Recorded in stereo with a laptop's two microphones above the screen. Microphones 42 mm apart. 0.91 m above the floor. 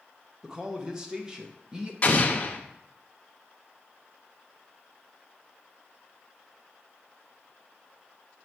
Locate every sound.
0.4 s a man speaking: 15° right (ahead or behind), 0.7 m
2.0 s an explosion: 30° left (ahead or behind), 0.9 m